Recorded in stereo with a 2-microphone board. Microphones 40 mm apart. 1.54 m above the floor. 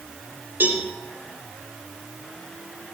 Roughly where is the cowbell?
Right.